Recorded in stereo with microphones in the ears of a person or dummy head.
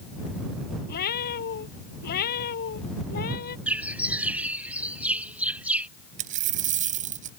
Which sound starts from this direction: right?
A dropped coin, at 6.2 s.